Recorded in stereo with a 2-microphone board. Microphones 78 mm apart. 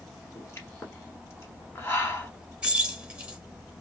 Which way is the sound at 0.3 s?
35° left (ahead or behind).